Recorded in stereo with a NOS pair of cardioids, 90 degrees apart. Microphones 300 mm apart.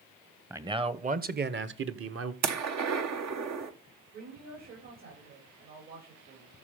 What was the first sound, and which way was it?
A man speaking, 10° right.